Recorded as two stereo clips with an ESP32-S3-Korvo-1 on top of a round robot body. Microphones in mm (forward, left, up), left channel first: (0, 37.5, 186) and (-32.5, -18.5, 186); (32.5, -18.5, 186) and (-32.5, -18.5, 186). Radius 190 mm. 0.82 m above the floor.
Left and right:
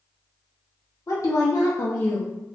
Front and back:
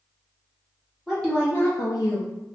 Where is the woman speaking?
90° left, 0.7 m; by 2.3 s 10° right, 0.7 m.